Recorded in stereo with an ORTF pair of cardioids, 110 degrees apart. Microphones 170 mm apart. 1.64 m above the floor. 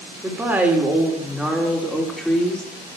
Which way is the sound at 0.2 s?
10° right.